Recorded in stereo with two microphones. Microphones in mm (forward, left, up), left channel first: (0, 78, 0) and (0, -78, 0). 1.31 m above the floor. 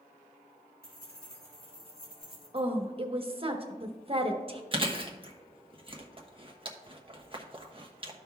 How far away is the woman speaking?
About 1.1 m.